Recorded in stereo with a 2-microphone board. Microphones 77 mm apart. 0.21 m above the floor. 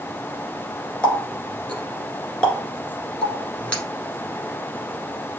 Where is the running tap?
10° left (ahead or behind), 1.9 m.